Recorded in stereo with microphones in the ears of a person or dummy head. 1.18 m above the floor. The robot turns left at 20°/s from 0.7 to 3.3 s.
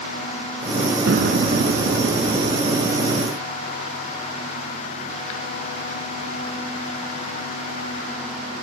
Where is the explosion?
125° right; by 3.2 s 165° right.